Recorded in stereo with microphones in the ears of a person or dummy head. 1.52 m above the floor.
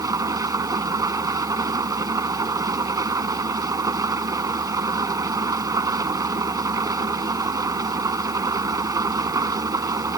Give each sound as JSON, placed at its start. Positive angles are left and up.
{"t": 0.0, "sound": "an engine running", "side_deg": -20}